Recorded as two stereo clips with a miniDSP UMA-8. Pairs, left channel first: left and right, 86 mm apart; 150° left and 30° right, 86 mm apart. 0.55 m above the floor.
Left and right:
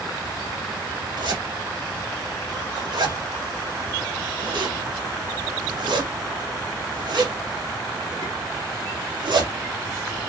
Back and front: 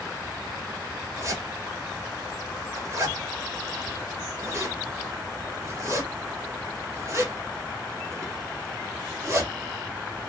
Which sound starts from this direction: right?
A zipper, at 1.2 s.